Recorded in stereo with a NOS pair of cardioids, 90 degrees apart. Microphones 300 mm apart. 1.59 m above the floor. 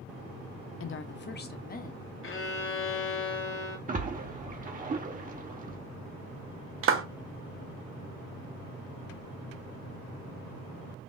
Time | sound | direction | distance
0.8 | a woman speaking | 50° left | 0.6 m
2.2 | a violin | 40° left | 1.0 m
3.9 | a splash | 30° right | 1.1 m
6.8 | a clap | 45° right | 0.8 m